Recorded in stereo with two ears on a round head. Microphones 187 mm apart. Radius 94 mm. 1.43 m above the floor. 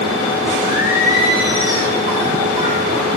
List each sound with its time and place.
0.6 s singing: 45° left (ahead or behind), 5.5 m